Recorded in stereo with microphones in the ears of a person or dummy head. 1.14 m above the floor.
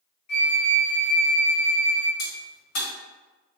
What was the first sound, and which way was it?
A flute, 45° left (ahead or behind).